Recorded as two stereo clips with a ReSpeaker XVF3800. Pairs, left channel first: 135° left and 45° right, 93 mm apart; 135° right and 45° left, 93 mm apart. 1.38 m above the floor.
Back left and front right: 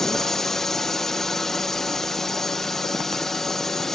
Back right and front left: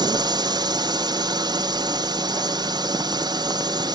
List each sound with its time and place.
0.0 s a drone: 50° left